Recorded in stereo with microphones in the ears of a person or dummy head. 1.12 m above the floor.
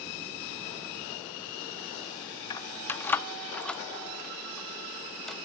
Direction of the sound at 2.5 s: 25° left (ahead or behind).